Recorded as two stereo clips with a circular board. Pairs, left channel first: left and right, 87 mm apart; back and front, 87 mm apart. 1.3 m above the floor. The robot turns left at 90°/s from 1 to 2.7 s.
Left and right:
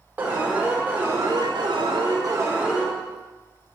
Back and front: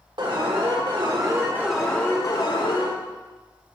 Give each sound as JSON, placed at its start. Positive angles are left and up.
{"t": 0.2, "sound": "an alarm", "azimuth_deg": -20, "distance_m": 2.5}